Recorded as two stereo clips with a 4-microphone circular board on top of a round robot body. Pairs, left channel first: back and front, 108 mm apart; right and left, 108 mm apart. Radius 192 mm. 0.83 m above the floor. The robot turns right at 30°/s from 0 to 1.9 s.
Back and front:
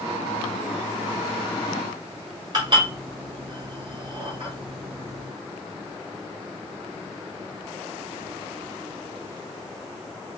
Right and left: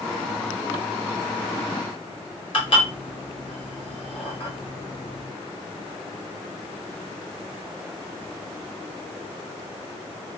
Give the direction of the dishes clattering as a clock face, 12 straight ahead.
2 o'clock.